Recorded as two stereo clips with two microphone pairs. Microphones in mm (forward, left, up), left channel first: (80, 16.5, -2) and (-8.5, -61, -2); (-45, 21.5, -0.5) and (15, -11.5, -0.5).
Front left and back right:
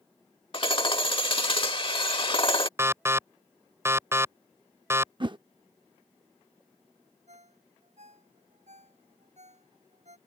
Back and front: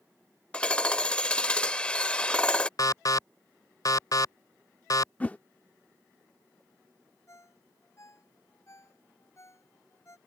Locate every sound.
0.5 s hammering: 80° left
2.8 s an alarm: 155° left
5.2 s a whoosh: 155° right
7.3 s a ringtone: 160° right